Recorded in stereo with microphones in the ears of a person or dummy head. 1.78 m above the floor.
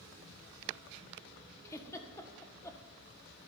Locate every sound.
1.6 s a giggle: 15° left (ahead or behind), 1.6 m